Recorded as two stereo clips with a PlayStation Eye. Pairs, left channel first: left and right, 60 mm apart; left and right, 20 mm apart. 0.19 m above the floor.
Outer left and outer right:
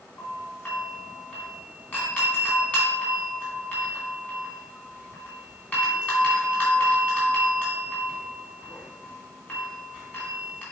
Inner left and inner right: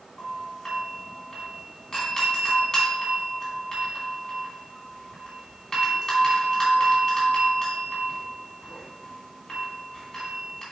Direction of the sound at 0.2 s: 30° left (ahead or behind).